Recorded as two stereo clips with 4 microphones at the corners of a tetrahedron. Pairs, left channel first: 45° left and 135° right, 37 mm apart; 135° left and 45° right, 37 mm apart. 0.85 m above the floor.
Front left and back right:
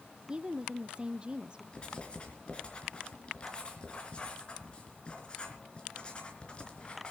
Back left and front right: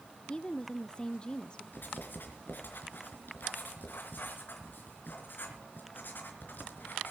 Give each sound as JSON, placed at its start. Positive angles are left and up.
{"t": 0.3, "sound": "a woman speaking", "azimuth_deg": -175, "distance_m": 0.6}
{"t": 1.7, "sound": "writing", "azimuth_deg": 105, "distance_m": 4.0}